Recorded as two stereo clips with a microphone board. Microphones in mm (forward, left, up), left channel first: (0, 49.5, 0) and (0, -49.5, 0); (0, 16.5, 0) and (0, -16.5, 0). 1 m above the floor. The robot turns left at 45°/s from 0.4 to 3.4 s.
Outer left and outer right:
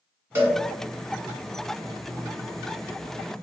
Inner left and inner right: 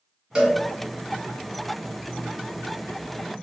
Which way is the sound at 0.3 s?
20° right (ahead or behind).